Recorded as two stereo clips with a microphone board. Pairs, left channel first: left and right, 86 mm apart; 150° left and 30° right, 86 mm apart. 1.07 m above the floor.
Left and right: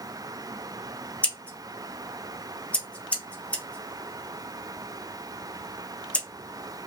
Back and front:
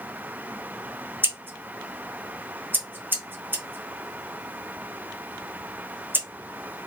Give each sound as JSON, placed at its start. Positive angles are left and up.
{"t": 1.2, "sound": "scissors", "azimuth_deg": 25, "distance_m": 0.7}